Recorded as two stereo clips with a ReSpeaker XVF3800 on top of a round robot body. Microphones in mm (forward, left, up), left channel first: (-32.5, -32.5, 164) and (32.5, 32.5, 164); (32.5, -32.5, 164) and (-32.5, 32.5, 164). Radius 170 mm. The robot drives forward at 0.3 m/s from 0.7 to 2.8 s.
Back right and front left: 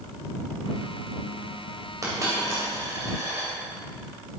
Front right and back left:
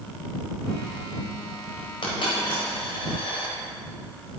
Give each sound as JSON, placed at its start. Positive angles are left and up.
{"t": 2.0, "sound": "a dropped coin", "azimuth_deg": -15, "distance_m": 2.5}